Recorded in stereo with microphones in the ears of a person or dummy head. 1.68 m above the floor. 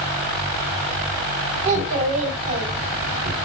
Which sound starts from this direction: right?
A child speaking, at 1.6 s.